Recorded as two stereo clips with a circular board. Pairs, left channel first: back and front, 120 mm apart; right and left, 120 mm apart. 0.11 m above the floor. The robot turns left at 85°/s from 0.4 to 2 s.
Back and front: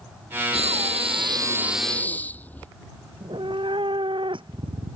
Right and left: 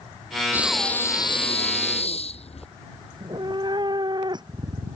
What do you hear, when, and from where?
0.5 s breathing: 20° left; by 2.7 s 105° right
3.1 s a cat meowing: 40° left